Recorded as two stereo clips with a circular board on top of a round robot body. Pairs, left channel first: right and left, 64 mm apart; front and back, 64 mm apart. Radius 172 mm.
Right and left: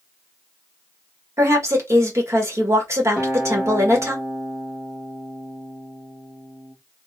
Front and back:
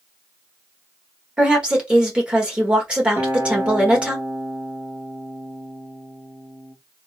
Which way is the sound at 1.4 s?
110° left.